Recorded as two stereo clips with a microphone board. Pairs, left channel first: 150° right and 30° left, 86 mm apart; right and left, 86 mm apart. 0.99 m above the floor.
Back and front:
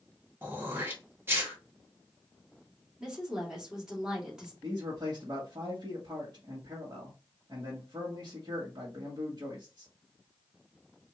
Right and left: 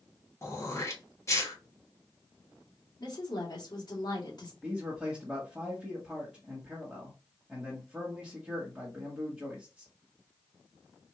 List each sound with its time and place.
0.4 s throat clearing: 35° right, 1.2 m
3.0 s a woman speaking: 50° right, 1.8 m
4.6 s a man speaking: 5° left, 1.3 m